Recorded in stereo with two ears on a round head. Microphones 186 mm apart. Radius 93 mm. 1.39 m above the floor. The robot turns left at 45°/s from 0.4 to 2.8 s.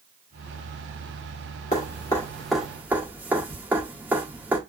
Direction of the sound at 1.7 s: 35° left (ahead or behind).